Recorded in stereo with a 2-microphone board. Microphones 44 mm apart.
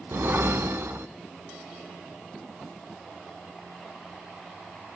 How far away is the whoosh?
About 0.5 m.